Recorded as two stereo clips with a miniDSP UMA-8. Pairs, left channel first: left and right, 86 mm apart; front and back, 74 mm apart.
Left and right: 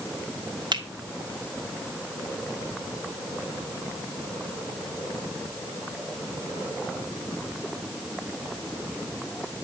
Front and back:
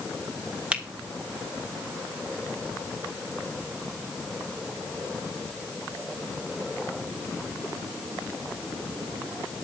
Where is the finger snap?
105° right, 1.8 m.